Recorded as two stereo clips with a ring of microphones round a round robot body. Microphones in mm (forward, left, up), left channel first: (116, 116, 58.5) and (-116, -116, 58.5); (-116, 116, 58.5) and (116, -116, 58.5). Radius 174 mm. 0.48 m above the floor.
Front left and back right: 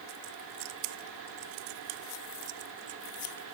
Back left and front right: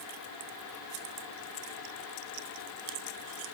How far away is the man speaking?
I don't hear a man speaking.